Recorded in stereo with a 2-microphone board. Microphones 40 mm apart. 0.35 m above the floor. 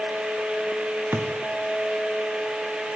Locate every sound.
1.1 s a thud: 75° right (ahead or behind), 3.5 m